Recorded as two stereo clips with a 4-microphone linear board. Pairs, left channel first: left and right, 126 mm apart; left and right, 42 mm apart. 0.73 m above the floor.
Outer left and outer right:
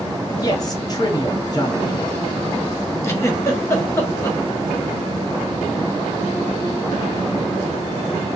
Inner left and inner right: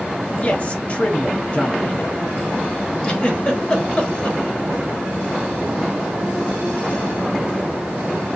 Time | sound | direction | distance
0.4 | a man speaking | 30° left (ahead or behind) | 1.2 m
3.0 | a giggle | 20° left (ahead or behind) | 1.3 m